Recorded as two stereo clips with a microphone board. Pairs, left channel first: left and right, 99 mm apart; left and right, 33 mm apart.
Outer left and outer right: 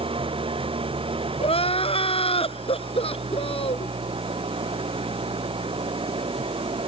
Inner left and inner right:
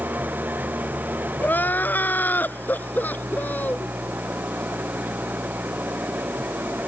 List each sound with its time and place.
0.0 s an engine running: 65° right (ahead or behind)
1.4 s crying: 75° left (ahead or behind)